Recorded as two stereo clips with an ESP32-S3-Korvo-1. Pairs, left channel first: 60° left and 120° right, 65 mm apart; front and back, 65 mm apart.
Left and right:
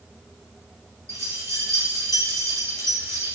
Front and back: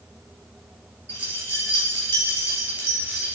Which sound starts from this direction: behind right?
Keys jangling, at 1.1 s.